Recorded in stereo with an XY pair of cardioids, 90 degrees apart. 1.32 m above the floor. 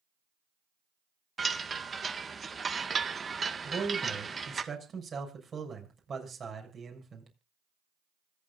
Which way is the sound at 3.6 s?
45° right.